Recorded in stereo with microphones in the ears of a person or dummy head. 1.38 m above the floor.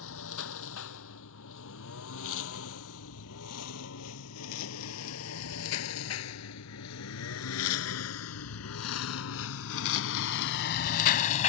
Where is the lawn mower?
70° left (ahead or behind); by 11.5 s 35° left (ahead or behind).